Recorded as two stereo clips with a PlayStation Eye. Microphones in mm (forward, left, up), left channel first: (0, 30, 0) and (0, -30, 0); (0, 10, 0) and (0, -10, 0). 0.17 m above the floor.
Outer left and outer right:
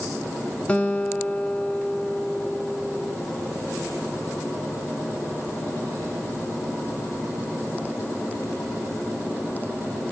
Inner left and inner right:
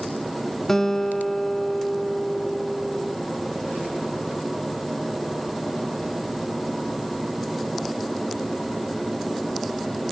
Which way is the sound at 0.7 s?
20° left (ahead or behind).